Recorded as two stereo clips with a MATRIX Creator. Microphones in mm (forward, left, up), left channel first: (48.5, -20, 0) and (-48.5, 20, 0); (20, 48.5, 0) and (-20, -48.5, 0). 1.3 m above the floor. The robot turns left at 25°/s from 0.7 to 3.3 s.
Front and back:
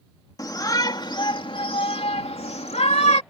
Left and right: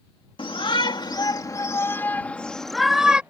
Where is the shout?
30° left; by 3.2 s 35° right.